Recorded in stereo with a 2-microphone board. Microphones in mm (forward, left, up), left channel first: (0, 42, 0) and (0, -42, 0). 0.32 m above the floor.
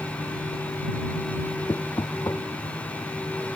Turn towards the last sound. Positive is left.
turn(degrees=40)  # may be behind; listen again after turning